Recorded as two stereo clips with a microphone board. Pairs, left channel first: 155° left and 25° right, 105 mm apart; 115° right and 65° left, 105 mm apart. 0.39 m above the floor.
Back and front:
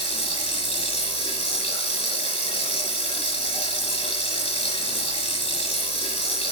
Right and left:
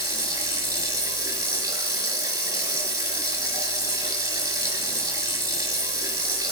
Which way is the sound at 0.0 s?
130° left.